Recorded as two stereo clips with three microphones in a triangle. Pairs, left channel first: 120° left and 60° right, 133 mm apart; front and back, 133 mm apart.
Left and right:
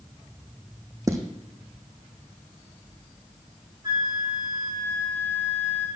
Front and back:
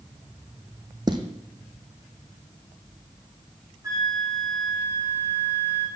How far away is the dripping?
I don't hear dripping.